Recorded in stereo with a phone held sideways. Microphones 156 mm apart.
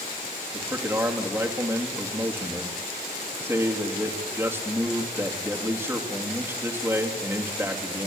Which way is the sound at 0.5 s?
15° right (ahead or behind).